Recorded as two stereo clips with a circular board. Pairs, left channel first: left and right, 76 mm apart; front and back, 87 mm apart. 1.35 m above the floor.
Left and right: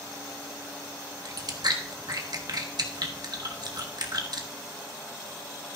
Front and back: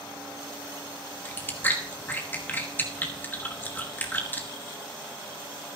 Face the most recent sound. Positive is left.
turn(degrees=-65)